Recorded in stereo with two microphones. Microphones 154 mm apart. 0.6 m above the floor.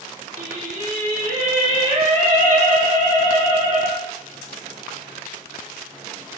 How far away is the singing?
About 4 m.